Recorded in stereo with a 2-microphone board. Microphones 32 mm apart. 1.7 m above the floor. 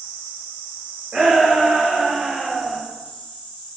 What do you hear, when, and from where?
1.1 s a shout: 40° right (ahead or behind), 1.7 m; by 2.8 s 10° right (ahead or behind), 1.1 m